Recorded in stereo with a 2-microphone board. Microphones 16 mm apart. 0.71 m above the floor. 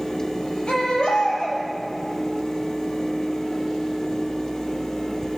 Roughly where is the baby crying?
Left.